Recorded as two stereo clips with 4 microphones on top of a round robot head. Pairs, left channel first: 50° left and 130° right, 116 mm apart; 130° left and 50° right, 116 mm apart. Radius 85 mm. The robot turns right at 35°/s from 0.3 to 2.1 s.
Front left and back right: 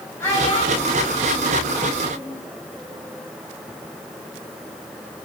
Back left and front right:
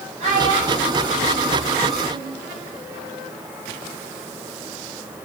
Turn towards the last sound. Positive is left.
turn(degrees=40)